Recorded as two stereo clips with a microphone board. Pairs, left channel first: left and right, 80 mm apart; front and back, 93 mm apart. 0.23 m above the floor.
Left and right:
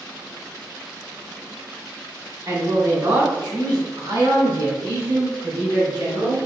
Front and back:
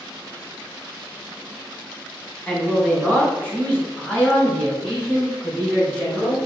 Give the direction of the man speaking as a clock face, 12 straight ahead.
2 o'clock.